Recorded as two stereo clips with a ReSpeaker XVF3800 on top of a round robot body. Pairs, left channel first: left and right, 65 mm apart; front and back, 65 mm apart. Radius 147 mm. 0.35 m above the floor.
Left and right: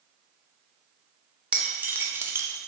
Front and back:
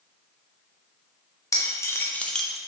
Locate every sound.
1.5 s keys jangling: 20° right, 0.7 m; by 2.6 s 100° right, 0.5 m